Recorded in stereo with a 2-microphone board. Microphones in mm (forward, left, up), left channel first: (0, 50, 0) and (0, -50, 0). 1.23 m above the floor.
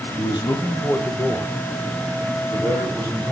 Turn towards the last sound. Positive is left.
turn(degrees=-35)  # may be behind; listen again after turning